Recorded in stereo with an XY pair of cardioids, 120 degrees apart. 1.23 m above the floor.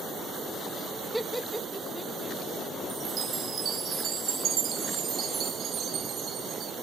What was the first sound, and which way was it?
Laughter, 5° right.